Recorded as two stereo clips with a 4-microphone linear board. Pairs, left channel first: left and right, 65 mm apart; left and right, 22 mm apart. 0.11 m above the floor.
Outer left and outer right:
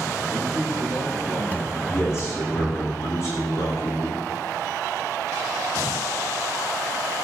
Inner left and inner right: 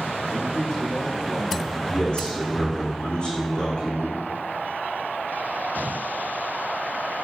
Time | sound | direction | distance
0.3 | a man speaking | 45° left (ahead or behind) | 5 m
1.9 | a man speaking | 50° left (ahead or behind) | 7.5 m